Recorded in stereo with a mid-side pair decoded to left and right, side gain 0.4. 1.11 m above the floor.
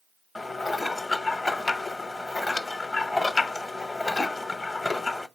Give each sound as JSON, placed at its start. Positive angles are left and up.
{"t": 0.3, "sound": "dishes clattering", "azimuth_deg": 25, "distance_m": 0.6}